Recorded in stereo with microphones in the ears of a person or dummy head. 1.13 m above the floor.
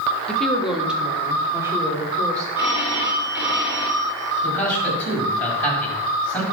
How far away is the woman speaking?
About 1.7 m.